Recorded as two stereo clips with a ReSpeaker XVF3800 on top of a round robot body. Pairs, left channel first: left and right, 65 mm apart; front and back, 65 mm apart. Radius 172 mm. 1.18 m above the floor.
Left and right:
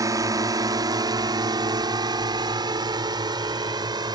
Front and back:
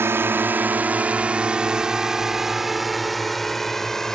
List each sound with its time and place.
0.0 s a drone: 125° right; by 4.2 s 85° right